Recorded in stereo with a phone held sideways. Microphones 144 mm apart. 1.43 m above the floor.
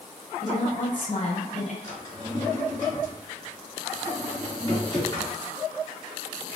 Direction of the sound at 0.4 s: 60° left (ahead or behind).